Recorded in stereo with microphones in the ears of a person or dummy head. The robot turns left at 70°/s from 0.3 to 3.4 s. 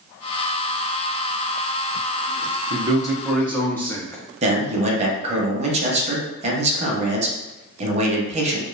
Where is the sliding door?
No sliding door in this recording.